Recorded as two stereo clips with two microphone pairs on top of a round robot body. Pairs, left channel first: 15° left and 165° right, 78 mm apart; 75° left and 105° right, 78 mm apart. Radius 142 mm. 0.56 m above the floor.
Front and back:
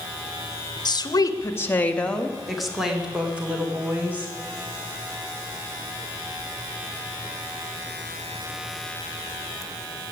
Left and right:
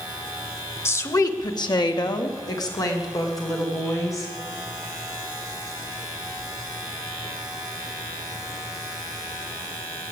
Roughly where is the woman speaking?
Ahead left.